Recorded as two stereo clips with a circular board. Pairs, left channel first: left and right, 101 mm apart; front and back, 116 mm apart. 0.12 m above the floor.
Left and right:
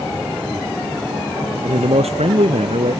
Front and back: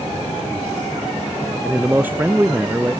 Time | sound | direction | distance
1.6 | a man speaking | 105° right | ?